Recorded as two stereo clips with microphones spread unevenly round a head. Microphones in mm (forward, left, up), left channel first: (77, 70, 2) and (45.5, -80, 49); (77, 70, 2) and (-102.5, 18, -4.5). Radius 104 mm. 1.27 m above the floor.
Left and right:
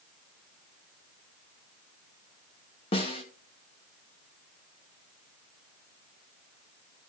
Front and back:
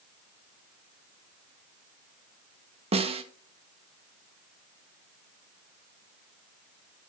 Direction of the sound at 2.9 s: 135° left.